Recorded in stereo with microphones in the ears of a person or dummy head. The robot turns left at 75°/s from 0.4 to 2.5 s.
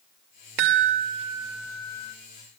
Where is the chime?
100° right, 1.3 m; by 2.1 s 145° left, 1.3 m.